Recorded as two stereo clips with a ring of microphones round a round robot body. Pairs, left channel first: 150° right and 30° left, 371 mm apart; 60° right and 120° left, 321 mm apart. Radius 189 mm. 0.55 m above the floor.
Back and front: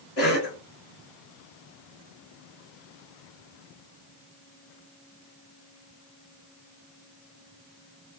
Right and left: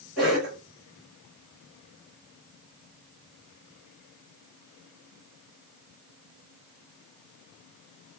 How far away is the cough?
About 1.7 m.